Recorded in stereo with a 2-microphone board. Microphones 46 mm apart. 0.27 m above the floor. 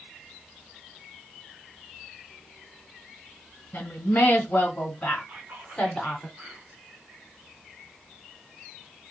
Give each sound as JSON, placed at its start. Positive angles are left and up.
{"t": 3.7, "sound": "a woman speaking", "side_deg": 50, "distance_m": 1.7}
{"t": 5.3, "sound": "whispering", "side_deg": -50, "distance_m": 2.5}